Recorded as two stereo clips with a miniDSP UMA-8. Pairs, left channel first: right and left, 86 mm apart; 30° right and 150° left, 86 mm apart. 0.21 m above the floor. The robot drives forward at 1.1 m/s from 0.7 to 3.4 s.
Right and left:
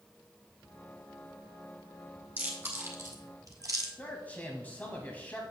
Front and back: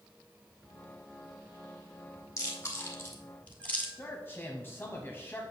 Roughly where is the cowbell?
I don't hear a cowbell.